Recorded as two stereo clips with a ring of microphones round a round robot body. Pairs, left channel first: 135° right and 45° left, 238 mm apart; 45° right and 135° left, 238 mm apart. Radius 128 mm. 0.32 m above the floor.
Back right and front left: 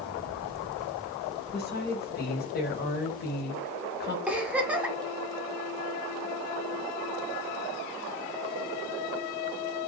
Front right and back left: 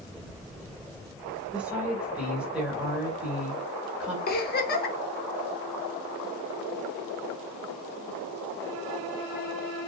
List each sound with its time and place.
1.5 s a woman speaking: 145° right, 1.1 m
4.3 s a giggle: 35° right, 0.6 m